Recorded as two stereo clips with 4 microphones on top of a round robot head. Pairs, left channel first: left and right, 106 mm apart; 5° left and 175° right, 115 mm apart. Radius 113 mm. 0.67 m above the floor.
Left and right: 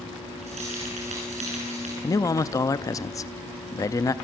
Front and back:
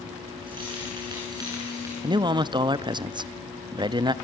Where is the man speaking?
140° left, 0.7 m.